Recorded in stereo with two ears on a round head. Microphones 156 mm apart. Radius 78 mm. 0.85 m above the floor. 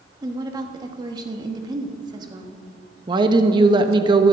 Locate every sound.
0.2 s a woman speaking: 25° right (ahead or behind), 1.4 m
3.1 s a woman speaking: 25° right (ahead or behind), 0.9 m